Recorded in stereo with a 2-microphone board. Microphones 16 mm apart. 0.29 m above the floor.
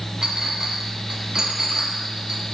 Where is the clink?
40° right (ahead or behind), 1.2 m.